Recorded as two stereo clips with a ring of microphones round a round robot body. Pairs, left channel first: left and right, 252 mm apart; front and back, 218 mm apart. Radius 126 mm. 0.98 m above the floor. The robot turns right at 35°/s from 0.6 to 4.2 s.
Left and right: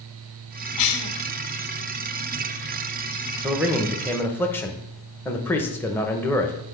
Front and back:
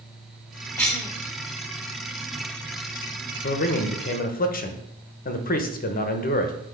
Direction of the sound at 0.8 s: 75° left.